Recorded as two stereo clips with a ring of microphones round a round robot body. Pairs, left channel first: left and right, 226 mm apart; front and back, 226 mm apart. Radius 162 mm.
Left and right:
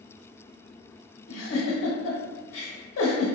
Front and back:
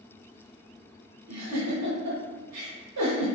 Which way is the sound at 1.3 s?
140° left.